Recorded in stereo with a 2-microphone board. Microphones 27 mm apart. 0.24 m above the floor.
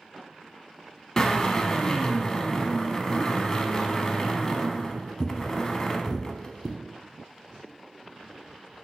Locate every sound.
1.2 s a drill: 20° left (ahead or behind), 0.6 m